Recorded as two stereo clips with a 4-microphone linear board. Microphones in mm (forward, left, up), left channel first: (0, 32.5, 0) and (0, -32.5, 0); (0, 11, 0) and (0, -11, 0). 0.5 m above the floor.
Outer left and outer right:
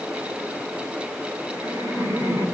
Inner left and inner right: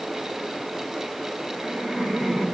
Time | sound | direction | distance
1.5 | laughter | 75° right (ahead or behind) | 5 m